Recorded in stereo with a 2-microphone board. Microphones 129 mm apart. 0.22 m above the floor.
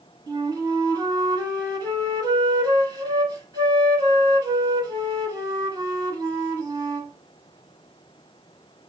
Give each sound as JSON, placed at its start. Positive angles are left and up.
{"t": 0.3, "sound": "a flute", "side_deg": -30, "distance_m": 1.2}